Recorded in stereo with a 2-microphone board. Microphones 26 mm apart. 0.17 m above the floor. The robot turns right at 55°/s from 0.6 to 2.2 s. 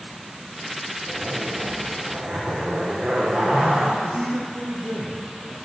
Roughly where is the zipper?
Right.